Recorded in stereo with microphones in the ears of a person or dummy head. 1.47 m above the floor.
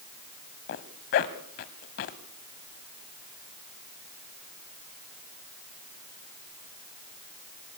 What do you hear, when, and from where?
0.7 s a zipper: 40° left (ahead or behind), 1.6 m